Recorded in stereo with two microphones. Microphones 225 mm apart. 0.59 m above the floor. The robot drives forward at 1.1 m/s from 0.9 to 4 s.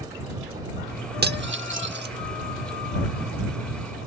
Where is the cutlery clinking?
45° right (ahead or behind).